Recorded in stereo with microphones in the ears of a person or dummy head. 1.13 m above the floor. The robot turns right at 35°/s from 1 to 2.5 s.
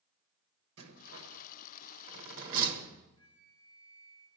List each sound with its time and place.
0.8 s a rattle: 65° right (ahead or behind), 1.4 m; by 3.0 s 50° right (ahead or behind), 1.4 m
3.2 s a flute: 85° right, 3 m